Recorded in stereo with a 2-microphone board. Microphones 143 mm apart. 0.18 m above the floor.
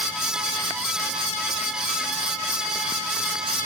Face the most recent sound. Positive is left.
No sound to turn to.